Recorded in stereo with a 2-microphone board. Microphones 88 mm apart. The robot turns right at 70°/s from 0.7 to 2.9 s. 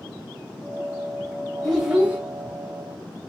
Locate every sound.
1.6 s a child speaking: 175° right, 0.8 m; by 2.2 s 140° right, 0.8 m